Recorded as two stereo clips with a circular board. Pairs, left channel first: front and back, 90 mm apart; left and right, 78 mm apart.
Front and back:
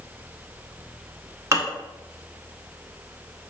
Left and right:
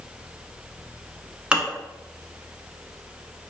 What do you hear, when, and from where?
1.5 s dishes clattering: 160° right, 0.8 m